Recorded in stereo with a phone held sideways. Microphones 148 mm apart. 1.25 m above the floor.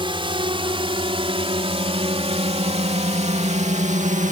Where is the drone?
35° right (ahead or behind); by 4.3 s 55° right (ahead or behind).